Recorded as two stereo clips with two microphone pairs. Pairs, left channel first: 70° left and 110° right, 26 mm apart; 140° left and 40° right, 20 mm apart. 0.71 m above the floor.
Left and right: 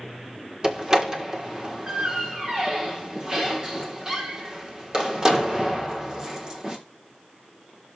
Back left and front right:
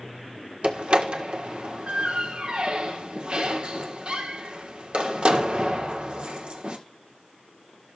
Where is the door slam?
50° right, 1.7 m.